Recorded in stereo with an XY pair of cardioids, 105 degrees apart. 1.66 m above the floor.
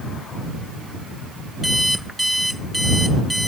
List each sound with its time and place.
1.6 s an alarm clock: 5° right